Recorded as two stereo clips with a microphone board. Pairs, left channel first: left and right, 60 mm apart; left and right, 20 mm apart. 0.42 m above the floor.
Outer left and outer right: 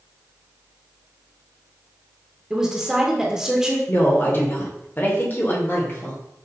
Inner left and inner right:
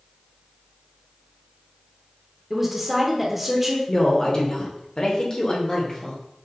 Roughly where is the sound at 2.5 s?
Centre.